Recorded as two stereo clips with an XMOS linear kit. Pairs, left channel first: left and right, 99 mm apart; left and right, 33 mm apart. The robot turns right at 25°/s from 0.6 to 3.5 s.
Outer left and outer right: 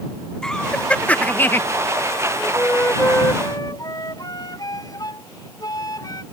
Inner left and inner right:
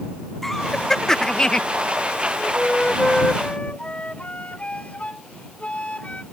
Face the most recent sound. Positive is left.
turn(degrees=40)  # may be behind; listen again after turning